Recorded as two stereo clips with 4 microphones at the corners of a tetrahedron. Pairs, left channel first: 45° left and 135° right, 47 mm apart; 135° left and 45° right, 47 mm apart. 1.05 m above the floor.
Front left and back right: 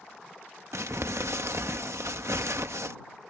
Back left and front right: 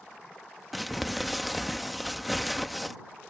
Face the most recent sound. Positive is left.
turn(degrees=-135)